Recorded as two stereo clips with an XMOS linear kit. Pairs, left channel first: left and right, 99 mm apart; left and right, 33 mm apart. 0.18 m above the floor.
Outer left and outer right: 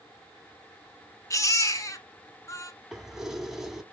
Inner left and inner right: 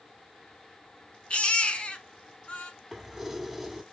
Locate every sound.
1.3 s a baby crying: 35° left (ahead or behind), 1.1 m
2.9 s keys jangling: 5° right (ahead or behind), 0.9 m